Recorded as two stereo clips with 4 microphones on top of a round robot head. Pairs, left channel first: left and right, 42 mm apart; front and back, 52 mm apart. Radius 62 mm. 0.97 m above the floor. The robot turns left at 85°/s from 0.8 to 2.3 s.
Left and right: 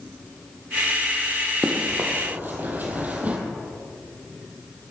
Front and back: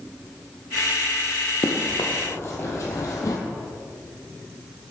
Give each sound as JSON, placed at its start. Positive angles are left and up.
{"t": 1.6, "sound": "running footsteps", "azimuth_deg": -10, "distance_m": 2.0}